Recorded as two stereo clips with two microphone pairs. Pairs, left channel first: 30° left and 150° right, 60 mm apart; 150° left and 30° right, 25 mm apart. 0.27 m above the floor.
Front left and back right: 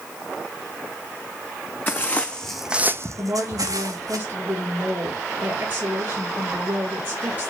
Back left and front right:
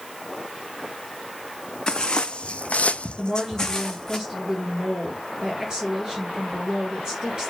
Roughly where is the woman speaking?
Right.